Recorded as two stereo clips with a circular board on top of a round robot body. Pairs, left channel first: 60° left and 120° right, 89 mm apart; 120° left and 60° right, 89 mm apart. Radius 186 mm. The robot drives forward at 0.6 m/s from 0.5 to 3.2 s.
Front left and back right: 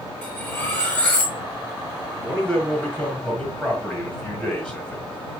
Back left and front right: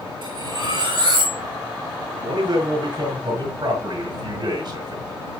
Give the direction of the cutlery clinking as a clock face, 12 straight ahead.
1 o'clock.